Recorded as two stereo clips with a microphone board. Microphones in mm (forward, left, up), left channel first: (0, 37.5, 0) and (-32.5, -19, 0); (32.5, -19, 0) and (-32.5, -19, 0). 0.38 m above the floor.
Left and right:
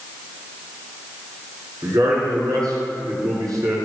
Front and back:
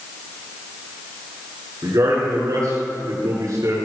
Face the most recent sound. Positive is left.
turn(degrees=-150)